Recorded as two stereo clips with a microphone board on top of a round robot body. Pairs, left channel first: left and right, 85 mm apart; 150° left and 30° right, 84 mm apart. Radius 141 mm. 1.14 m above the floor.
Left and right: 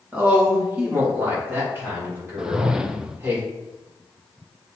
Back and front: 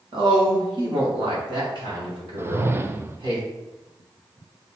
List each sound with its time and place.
0.1 s a woman speaking: 20° right, 2.5 m; by 3.4 s 25° right, 5 m
2.4 s a whoosh: 20° right, 0.7 m